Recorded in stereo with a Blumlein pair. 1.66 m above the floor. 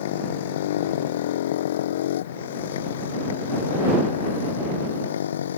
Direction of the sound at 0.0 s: 55° left.